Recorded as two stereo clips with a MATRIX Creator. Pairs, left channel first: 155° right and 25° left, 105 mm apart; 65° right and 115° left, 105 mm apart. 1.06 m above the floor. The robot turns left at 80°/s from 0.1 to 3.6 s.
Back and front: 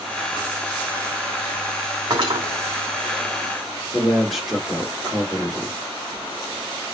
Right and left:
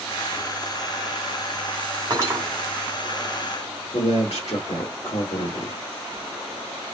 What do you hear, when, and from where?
2.1 s cutlery clinking: 65° left, 2.5 m; by 2.4 s 35° left, 2.5 m
3.9 s a man speaking: 70° right, 2 m